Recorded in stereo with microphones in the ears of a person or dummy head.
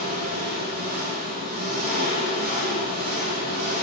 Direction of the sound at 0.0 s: 45° right (ahead or behind).